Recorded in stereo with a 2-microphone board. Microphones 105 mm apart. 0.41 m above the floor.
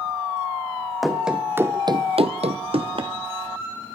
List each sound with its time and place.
1.0 s running footsteps: centre (ahead or behind), 1.7 m; by 3.1 s 50° right (ahead or behind), 1.8 m